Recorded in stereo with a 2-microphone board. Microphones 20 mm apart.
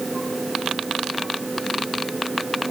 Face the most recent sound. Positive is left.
No sound to turn to.